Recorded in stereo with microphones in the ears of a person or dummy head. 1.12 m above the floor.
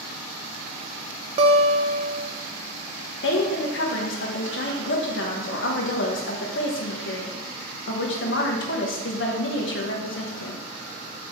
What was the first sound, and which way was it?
A guitar, 35° right (ahead or behind).